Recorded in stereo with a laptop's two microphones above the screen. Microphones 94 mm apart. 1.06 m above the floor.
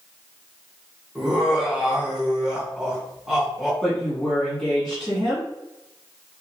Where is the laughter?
10° right (ahead or behind), 1.5 m.